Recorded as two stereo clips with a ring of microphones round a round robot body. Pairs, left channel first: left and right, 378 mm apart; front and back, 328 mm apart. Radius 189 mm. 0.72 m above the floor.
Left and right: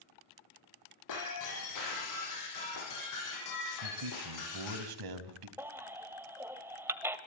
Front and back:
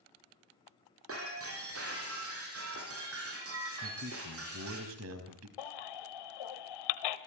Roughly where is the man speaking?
Behind right.